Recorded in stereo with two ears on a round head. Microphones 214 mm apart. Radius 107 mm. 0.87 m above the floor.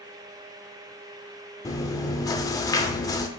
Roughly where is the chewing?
Centre.